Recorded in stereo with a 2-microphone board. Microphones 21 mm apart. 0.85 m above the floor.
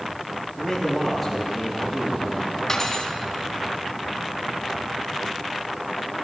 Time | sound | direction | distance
0.6 | a man speaking | centre (ahead or behind) | 6.5 m
2.7 | cutlery clinking | 25° left (ahead or behind) | 3 m